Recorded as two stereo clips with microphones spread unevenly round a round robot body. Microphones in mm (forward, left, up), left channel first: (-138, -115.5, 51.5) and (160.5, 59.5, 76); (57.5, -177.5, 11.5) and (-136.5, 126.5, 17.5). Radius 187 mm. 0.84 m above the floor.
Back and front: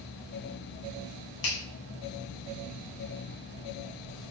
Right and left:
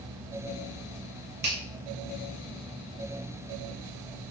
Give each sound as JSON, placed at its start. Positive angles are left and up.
{"t": 1.4, "sound": "a finger snap", "azimuth_deg": -175, "distance_m": 3.0}